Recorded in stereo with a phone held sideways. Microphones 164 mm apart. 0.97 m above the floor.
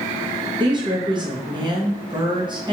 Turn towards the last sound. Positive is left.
turn(degrees=-30)  # may be behind; listen again after turning